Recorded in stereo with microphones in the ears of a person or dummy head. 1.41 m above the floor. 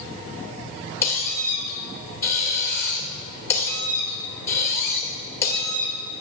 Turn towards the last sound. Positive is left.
turn(degrees=10)  # may be behind; listen again after turning